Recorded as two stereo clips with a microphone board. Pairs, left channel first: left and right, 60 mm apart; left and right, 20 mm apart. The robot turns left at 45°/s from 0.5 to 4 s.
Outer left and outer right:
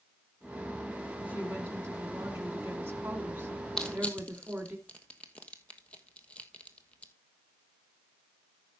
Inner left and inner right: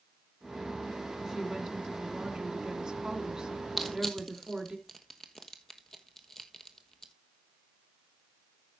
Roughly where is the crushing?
Centre.